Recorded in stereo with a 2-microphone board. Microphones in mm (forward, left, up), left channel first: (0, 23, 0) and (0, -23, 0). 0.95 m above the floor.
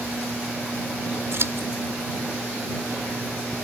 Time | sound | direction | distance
1.3 | scissors | 65° right (ahead or behind) | ?